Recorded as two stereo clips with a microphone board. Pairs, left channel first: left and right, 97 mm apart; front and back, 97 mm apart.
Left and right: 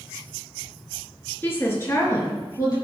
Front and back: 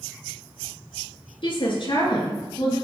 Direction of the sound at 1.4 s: 20° left.